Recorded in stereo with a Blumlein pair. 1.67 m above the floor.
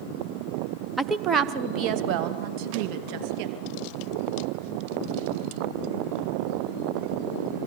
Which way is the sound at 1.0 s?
5° right.